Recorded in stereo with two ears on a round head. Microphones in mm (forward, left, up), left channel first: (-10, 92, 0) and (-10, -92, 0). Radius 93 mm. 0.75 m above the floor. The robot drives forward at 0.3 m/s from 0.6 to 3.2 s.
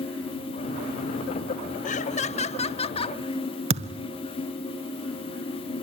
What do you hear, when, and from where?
1.9 s laughter: 40° left (ahead or behind), 0.8 m; by 3.2 s 25° left (ahead or behind), 1.1 m
3.7 s a thud: 30° right (ahead or behind), 1.2 m